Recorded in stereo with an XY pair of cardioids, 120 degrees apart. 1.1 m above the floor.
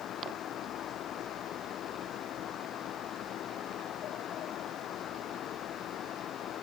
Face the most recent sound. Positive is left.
turn(degrees=60)